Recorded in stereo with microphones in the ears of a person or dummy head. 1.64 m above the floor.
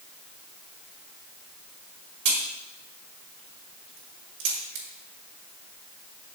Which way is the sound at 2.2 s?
65° right (ahead or behind).